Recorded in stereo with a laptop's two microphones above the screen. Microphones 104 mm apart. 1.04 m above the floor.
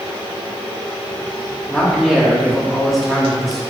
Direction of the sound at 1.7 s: Centre (ahead or behind).